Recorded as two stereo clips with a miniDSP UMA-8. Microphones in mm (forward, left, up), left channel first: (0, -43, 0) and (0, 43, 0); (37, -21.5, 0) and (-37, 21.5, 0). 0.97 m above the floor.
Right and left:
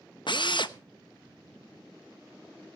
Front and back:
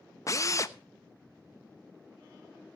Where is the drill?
80° right, 0.9 m.